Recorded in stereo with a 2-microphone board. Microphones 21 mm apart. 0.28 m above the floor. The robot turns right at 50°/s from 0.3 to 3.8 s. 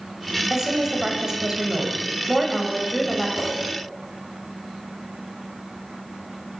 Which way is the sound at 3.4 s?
45° left (ahead or behind).